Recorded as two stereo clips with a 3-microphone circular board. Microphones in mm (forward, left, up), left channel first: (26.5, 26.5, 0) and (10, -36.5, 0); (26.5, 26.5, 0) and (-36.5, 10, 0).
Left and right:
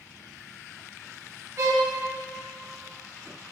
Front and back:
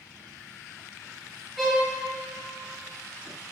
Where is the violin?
80° right, 1.4 m.